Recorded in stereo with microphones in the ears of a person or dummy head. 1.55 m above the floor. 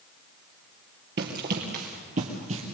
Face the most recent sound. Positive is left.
turn(degrees=-35)  # may be behind; listen again after turning